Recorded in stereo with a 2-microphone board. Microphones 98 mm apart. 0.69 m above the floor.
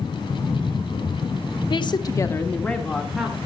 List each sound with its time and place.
1.7 s a woman speaking: 50° left (ahead or behind), 1.1 m; by 3.4 s centre (ahead or behind), 2.5 m